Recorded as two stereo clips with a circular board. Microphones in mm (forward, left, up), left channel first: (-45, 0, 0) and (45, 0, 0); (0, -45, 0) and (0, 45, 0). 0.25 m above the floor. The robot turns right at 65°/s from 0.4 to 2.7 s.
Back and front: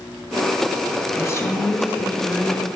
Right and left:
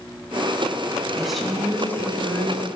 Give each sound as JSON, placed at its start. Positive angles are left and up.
{"t": 1.2, "sound": "a woman speaking", "azimuth_deg": 170, "distance_m": 1.1}